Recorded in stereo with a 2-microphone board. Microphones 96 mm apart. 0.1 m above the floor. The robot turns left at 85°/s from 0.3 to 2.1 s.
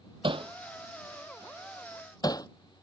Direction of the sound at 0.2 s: 65° right (ahead or behind).